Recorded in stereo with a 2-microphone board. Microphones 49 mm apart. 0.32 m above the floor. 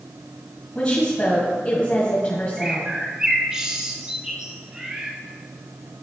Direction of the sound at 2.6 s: 15° right (ahead or behind).